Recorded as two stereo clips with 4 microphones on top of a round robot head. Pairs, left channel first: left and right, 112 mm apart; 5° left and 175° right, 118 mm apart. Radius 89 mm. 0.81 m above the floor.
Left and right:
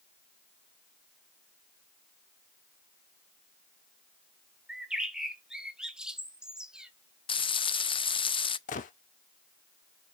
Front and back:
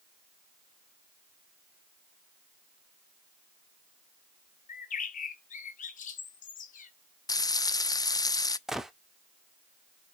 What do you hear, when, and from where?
4.7 s a bird: 5° right, 1.3 m
7.3 s frying: 60° left, 0.5 m
8.7 s a gunshot: 100° left, 0.8 m